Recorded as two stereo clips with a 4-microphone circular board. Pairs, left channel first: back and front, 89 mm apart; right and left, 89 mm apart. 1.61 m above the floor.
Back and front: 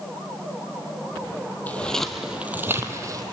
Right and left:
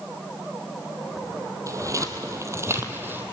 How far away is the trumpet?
I don't hear a trumpet.